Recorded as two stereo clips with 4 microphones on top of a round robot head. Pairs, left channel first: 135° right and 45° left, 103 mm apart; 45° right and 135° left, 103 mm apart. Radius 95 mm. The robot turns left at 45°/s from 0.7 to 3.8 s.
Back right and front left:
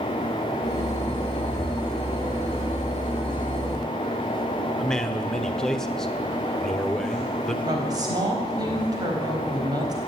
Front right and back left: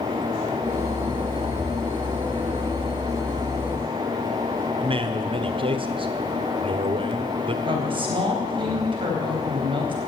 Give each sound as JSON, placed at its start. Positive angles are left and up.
{"t": 4.8, "sound": "a man speaking", "azimuth_deg": 145, "distance_m": 1.3}
{"t": 7.7, "sound": "a woman speaking", "azimuth_deg": 100, "distance_m": 4.0}